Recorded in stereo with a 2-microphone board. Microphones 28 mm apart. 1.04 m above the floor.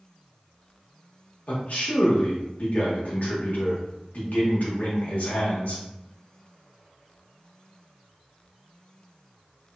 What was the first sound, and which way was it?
A man speaking, 65° left (ahead or behind).